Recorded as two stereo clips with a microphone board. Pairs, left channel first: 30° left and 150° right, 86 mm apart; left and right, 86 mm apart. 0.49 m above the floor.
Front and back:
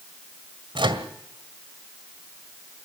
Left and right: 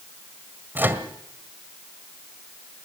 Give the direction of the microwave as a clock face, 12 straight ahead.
5 o'clock.